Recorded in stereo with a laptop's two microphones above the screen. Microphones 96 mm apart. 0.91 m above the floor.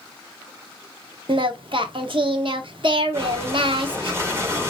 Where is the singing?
60° right (ahead or behind), 0.8 m.